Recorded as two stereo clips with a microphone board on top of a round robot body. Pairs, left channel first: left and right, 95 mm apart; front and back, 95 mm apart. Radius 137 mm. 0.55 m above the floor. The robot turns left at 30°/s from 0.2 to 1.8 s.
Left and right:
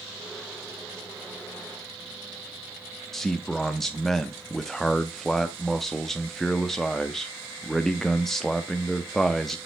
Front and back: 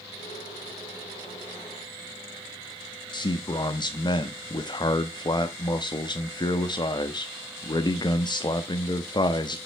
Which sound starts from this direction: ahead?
A man speaking, at 3.1 s.